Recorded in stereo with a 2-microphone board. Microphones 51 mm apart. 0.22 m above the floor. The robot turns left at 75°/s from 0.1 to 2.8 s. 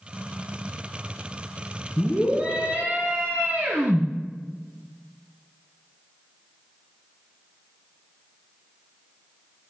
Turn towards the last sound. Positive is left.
turn(degrees=-60)